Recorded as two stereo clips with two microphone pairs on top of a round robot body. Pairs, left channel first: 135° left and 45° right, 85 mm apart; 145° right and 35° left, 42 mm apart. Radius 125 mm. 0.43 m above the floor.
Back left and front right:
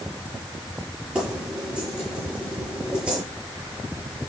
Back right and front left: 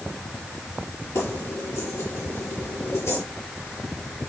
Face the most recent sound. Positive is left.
turn(degrees=-120)